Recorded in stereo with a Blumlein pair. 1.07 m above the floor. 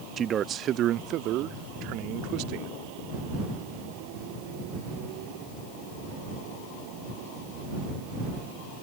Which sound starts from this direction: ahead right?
A man speaking, at 0.2 s.